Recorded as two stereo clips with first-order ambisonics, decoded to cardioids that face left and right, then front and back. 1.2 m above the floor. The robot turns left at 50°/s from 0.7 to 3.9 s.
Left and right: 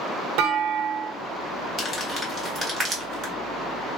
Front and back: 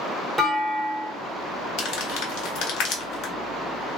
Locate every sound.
0.4 s a clunk: 95° right, 0.7 m; by 1.1 s 115° right, 0.7 m
1.8 s crumpling: 35° left, 1.0 m; by 3.3 s 45° right, 1.0 m